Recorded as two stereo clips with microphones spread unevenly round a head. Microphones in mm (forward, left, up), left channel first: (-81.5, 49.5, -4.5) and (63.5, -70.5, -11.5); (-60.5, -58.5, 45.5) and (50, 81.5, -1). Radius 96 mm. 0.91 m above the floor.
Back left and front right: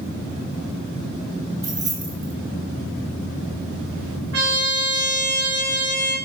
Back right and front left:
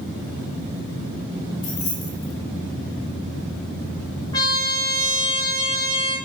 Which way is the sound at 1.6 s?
115° right.